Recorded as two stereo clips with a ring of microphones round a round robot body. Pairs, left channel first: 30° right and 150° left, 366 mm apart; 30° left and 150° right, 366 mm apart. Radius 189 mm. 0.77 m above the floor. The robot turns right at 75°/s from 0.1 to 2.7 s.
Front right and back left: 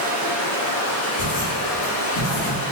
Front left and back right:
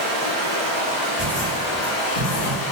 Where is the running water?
145° right, 1.2 m; by 2.7 s 50° left, 1.2 m.